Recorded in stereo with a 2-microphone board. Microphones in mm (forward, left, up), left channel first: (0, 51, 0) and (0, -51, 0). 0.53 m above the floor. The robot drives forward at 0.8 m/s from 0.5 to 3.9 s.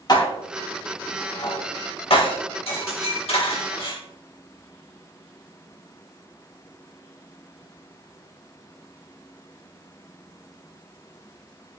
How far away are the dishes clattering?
About 2.5 m.